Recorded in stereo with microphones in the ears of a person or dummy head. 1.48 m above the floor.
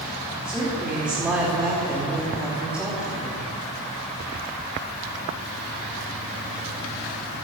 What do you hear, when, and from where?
0.5 s a woman speaking: 10° right (ahead or behind), 3 m